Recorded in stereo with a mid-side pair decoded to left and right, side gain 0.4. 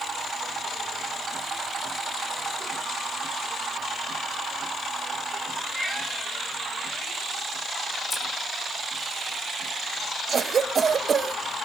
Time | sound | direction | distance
5.8 | a cat meowing | 5° left | 7 m
8.1 | scissors | 20° left | 8.5 m
10.3 | a cough | 55° right | 1.2 m